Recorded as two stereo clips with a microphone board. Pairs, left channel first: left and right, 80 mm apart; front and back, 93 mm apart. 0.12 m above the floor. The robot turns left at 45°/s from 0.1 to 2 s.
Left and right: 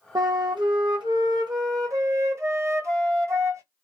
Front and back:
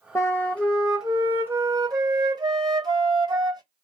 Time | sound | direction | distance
0.1 | a flute | 55° right | 0.8 m